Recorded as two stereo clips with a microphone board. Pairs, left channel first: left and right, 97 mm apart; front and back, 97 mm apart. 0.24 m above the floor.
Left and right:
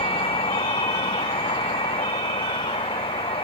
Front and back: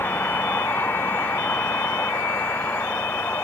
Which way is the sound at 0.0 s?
70° left.